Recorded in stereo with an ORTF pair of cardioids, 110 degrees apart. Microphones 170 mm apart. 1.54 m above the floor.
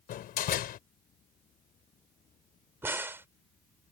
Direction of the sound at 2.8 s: 15° right.